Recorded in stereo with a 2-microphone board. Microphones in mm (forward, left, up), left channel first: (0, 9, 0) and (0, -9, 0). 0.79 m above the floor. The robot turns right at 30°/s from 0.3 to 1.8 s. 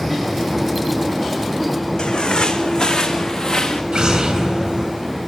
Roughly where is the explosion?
Right.